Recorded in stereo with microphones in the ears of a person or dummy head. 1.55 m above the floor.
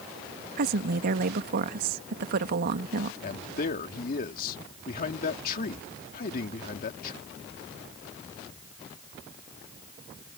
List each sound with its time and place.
0.6 s a woman speaking: 55° right (ahead or behind)
3.2 s a man speaking: 50° left (ahead or behind)